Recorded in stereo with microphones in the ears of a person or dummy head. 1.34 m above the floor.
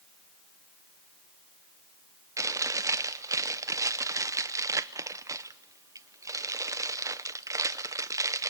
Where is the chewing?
15° right (ahead or behind), 0.8 m.